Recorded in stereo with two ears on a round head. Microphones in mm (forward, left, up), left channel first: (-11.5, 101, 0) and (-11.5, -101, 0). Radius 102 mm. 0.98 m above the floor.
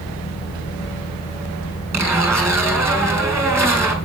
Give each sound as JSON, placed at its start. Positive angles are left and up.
{"t": 1.9, "sound": "a zipper", "side_deg": -15, "distance_m": 4.5}